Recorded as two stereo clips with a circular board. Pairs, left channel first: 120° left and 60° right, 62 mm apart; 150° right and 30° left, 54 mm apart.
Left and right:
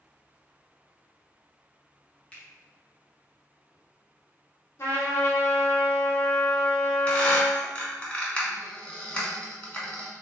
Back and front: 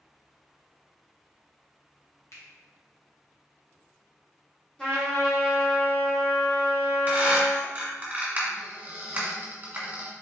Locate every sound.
2.3 s a finger snap: 175° right, 1.1 m
4.8 s a trumpet: 145° left, 1.7 m
7.1 s a squeak: 65° left, 1.4 m